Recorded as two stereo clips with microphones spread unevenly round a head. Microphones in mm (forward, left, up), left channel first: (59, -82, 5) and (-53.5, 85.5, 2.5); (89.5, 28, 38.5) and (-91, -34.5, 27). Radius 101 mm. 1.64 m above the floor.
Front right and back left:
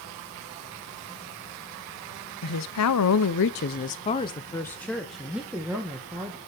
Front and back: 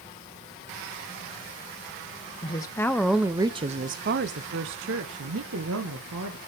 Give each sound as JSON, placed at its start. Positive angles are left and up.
{"t": 2.4, "sound": "a woman speaking", "azimuth_deg": -50, "distance_m": 1.0}